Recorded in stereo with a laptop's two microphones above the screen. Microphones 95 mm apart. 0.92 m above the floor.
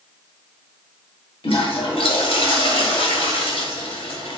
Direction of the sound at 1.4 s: 75° left (ahead or behind).